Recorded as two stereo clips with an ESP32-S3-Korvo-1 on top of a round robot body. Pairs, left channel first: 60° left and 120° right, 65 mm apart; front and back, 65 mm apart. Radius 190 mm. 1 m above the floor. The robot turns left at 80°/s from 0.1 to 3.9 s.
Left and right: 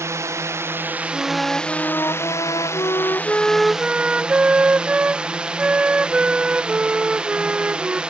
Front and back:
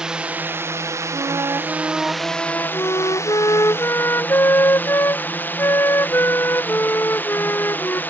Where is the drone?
105° right; by 8.1 s 50° right.